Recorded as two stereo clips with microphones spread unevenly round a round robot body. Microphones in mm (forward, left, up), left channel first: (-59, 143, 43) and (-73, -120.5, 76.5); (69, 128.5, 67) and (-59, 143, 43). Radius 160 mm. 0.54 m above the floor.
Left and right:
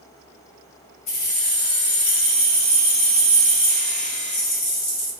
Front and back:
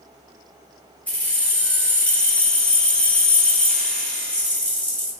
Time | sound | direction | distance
1.1 | keys jangling | 75° left | 1.4 m